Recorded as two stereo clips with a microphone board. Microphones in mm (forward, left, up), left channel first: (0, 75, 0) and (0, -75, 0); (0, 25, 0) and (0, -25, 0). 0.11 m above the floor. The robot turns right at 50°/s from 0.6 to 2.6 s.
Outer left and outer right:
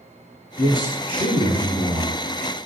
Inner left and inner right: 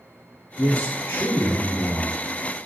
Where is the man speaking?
20° left (ahead or behind), 1.3 m; by 2.2 s 25° left (ahead or behind), 1.3 m.